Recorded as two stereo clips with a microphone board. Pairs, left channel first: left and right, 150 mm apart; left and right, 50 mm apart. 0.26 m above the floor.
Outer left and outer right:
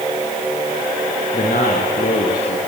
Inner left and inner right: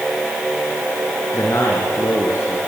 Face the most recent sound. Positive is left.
turn(degrees=75)  # may be behind; listen again after turning